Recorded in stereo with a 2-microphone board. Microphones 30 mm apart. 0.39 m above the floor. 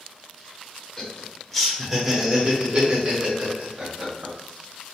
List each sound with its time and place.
1.0 s laughter: 20° left (ahead or behind), 1.1 m; by 4.3 s 45° right (ahead or behind), 1.5 m